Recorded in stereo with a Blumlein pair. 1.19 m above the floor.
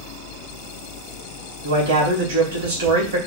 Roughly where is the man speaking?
Ahead right.